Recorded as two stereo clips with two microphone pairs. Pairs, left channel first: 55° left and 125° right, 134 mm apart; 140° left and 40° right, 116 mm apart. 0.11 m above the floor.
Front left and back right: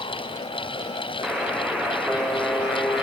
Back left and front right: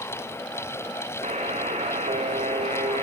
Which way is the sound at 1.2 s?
40° right.